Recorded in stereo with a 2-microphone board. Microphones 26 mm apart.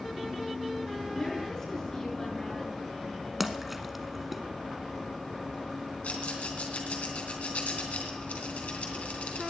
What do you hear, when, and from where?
1.1 s a woman speaking: 20° left (ahead or behind), 8 m
3.4 s a splash: 10° right (ahead or behind), 1.0 m
6.0 s a rattle: 80° left, 3 m